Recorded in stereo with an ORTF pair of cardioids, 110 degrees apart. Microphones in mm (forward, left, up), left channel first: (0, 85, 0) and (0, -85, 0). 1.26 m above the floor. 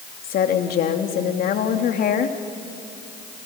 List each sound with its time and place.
0.2 s a woman speaking: 60° left, 2.5 m